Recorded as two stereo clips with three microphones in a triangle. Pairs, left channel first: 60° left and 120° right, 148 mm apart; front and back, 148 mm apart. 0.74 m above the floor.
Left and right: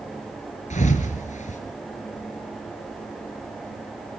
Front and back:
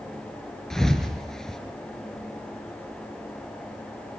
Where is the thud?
85° left, 2.5 m.